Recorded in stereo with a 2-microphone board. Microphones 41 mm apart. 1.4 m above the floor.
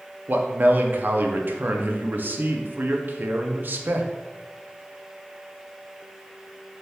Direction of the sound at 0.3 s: 55° right (ahead or behind).